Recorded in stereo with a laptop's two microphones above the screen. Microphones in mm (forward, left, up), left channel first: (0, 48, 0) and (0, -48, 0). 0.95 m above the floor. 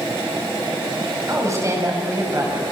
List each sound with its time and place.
1.3 s a woman speaking: 30° right (ahead or behind), 7 m